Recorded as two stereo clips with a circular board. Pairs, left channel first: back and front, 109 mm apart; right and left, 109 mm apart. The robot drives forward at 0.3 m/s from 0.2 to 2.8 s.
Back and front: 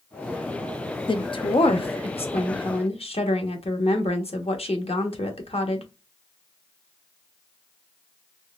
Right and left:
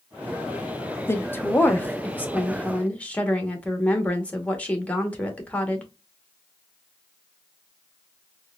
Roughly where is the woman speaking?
Behind right.